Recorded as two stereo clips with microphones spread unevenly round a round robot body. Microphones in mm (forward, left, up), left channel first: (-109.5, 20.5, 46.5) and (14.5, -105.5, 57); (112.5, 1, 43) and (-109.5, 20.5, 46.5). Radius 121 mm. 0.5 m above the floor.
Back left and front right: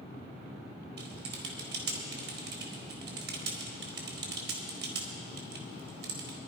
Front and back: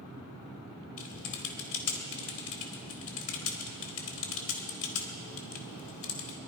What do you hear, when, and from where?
1.0 s typing on a keyboard: 15° right, 2 m